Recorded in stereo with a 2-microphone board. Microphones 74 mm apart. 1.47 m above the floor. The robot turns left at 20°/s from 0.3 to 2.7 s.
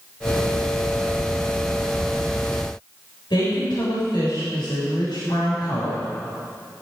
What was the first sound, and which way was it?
A woman speaking, 85° left.